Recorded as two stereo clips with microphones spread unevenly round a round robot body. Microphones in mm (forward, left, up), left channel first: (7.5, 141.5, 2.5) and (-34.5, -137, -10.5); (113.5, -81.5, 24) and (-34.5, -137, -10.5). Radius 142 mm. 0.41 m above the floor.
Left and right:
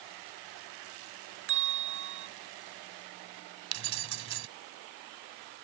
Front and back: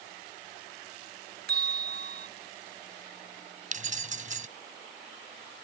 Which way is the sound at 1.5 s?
145° right.